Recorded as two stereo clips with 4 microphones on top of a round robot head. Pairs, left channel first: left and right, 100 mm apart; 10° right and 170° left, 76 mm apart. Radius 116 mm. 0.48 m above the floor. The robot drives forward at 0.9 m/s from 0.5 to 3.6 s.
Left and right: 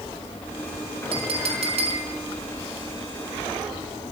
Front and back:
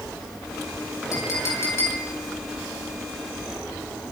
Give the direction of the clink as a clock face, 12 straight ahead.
2 o'clock.